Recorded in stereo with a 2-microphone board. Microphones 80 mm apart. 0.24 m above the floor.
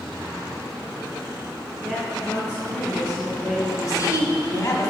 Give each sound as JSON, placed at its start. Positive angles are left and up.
{"t": 1.8, "sound": "a woman speaking", "side_deg": 10, "distance_m": 3.0}
{"t": 3.8, "sound": "a woman speaking", "side_deg": 40, "distance_m": 1.8}